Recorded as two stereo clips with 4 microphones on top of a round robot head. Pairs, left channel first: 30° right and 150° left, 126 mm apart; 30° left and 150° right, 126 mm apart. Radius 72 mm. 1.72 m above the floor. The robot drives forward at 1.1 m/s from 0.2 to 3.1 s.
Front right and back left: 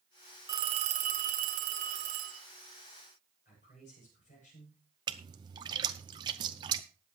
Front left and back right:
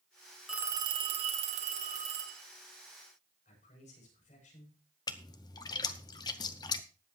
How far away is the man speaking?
About 8.5 m.